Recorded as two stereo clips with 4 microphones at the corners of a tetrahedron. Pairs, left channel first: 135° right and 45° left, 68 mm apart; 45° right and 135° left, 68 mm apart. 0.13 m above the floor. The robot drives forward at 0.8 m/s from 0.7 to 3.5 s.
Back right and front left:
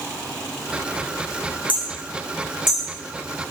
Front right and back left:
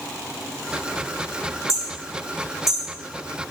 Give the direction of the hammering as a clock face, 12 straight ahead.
7 o'clock.